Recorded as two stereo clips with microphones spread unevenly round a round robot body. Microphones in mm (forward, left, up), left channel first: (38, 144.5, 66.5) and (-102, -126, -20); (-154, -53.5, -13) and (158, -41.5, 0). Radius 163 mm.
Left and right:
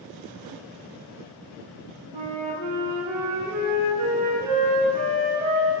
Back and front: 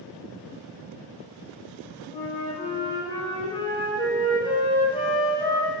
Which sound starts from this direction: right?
A flute, at 2.1 s.